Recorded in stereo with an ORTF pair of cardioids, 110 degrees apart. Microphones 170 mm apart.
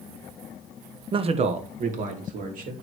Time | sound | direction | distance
1.1 | a man speaking | 30° right | 1.0 m